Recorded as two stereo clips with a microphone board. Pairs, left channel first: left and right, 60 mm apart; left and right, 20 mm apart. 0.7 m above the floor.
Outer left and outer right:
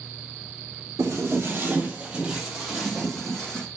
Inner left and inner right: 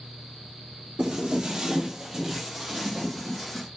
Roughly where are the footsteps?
Right.